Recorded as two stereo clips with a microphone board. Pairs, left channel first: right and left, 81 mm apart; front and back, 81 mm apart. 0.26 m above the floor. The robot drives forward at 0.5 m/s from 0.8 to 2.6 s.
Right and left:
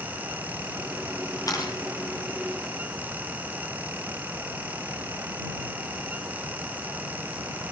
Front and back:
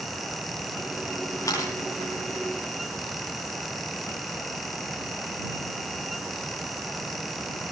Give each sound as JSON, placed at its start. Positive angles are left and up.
{"t": 1.5, "sound": "a camera shutter", "azimuth_deg": -45, "distance_m": 7.0}